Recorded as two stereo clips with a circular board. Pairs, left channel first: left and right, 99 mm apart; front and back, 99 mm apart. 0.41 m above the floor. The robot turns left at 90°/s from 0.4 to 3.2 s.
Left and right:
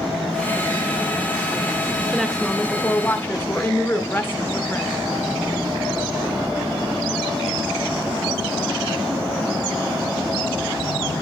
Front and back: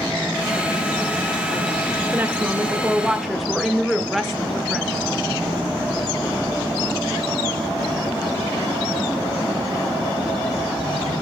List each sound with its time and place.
2.1 s a woman speaking: 170° right, 0.9 m; by 4.9 s 90° left, 0.9 m